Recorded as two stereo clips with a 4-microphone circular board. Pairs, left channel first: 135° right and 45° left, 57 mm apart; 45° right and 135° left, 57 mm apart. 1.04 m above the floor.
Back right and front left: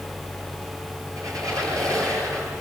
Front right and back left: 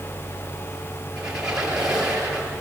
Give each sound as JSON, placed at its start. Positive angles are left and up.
{"t": 1.2, "sound": "a squeak", "azimuth_deg": 60, "distance_m": 9.5}